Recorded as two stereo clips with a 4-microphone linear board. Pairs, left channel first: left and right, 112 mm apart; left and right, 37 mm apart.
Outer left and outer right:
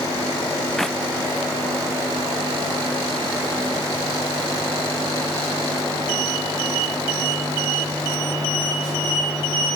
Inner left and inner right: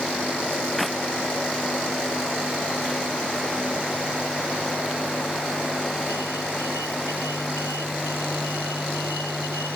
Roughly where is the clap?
Centre.